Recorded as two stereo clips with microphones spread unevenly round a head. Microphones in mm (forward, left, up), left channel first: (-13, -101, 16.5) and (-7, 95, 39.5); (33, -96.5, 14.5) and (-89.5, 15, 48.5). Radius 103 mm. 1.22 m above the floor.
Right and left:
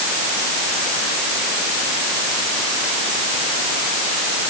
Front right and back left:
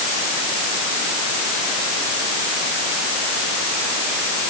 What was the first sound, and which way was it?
Only background noise.